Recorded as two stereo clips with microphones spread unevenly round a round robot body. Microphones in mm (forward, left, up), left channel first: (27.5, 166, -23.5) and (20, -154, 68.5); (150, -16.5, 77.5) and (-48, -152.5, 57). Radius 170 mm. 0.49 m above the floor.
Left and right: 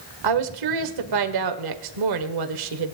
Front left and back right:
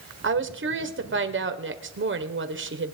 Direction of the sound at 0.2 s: 115° right.